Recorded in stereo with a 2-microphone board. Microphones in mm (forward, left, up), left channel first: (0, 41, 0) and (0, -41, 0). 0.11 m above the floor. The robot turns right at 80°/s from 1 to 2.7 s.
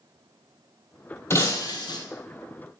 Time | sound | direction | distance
1.3 | breaking glass | 35° left | 1.5 m